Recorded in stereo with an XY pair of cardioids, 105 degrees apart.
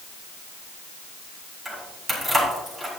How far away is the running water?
No running water in this recording.